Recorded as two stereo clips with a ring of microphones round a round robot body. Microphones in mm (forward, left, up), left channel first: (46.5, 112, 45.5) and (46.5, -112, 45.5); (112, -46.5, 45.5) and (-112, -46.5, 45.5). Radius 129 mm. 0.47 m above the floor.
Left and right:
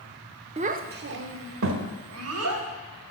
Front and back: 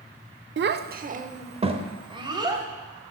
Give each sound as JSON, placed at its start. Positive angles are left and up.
{"t": 0.6, "sound": "a child speaking", "azimuth_deg": -150, "distance_m": 0.6}